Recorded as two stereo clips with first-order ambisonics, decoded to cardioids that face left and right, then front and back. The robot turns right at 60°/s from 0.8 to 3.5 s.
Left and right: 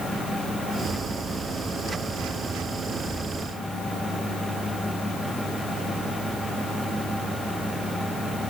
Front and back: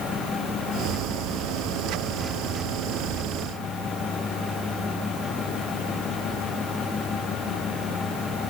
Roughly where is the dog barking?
No dog barking in this recording.